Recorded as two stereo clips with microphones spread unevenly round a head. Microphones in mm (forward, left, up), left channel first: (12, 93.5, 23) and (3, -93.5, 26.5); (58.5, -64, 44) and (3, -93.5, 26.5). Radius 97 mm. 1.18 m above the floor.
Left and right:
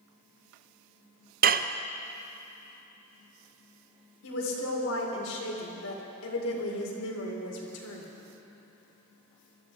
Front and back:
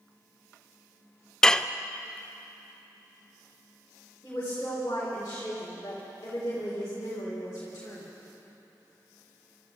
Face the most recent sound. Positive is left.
turn(degrees=90)